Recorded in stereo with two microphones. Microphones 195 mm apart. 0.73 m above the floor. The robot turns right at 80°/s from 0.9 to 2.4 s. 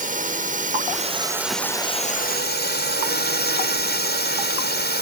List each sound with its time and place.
0.0 s a drone: 50° right; by 5.0 s 70° left